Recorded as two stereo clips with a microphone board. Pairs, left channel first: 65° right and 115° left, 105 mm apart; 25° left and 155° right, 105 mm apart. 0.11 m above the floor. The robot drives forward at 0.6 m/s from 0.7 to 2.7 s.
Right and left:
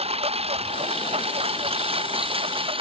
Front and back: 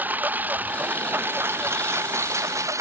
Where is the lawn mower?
130° left; by 2.8 s 140° left.